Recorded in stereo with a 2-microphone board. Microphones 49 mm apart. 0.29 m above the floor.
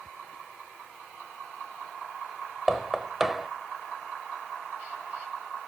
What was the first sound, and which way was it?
Knocking, 5° right (ahead or behind).